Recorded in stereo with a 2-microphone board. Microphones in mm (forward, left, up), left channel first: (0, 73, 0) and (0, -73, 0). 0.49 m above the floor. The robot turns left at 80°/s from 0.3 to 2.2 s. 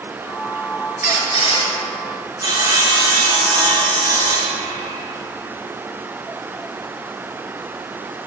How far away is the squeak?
About 1.6 m.